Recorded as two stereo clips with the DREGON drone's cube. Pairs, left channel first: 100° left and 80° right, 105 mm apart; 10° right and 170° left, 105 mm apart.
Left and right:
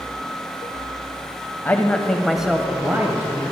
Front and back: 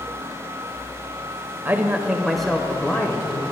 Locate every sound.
1.6 s a man speaking: 135° left, 1.0 m; by 3.4 s 50° right, 1.2 m